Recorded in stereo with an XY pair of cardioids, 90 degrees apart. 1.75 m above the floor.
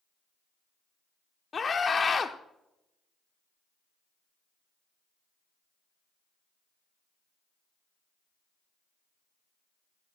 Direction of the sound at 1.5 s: 40° left.